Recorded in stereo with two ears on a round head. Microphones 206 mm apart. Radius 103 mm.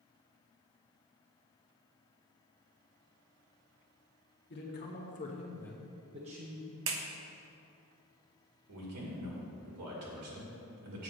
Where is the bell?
No bell in this recording.